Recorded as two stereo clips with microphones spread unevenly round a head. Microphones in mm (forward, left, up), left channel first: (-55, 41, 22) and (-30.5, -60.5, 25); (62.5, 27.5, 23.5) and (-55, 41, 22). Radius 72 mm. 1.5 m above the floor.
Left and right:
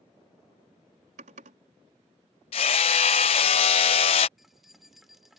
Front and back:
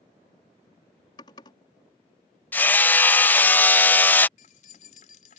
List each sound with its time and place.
1.2 s typing on a keyboard: 70° right
2.5 s hammering: 65° left
4.4 s keys jangling: 10° left